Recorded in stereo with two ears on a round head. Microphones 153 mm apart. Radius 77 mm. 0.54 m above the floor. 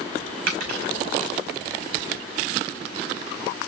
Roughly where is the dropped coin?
Right.